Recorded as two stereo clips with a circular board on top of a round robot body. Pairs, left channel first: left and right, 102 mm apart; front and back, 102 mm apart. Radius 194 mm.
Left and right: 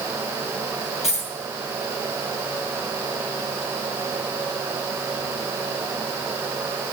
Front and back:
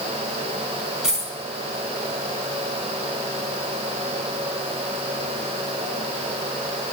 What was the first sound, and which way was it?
A dropped coin, 95° left.